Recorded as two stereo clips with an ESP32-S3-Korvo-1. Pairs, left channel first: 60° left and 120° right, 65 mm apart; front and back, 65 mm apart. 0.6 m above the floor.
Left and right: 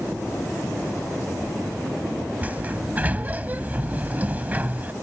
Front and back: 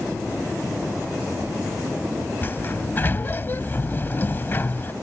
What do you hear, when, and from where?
2.4 s a sliding door: 55° right